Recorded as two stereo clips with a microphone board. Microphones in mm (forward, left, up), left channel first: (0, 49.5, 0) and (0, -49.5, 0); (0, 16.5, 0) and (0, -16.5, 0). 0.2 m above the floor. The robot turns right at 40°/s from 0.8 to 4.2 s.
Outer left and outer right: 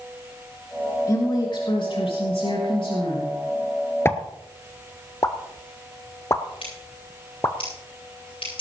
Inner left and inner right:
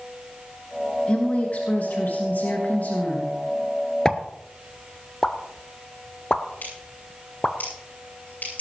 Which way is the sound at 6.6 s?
65° left (ahead or behind).